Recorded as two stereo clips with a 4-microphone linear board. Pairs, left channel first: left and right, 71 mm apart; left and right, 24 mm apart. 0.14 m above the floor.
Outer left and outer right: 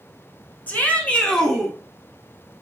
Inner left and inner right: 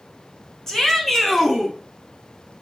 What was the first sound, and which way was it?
A shout, 25° left (ahead or behind).